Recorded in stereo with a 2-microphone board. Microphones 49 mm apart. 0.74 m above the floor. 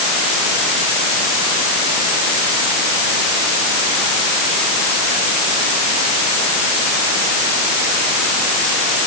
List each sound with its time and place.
Only background noise.